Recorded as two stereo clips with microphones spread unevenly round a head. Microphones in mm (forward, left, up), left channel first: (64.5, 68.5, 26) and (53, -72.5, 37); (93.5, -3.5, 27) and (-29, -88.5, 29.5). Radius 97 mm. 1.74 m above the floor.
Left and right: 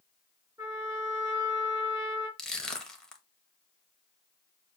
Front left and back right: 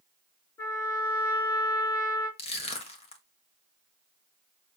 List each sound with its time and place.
0.6 s a trumpet: 30° right, 4 m
2.4 s crushing: 5° right, 1.5 m